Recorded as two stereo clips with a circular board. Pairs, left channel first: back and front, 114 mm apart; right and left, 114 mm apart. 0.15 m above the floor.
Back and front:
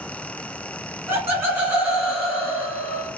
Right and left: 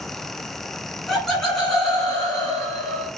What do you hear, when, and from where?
1.1 s laughter: 5° right, 1.4 m; by 3.1 s 145° right, 1.4 m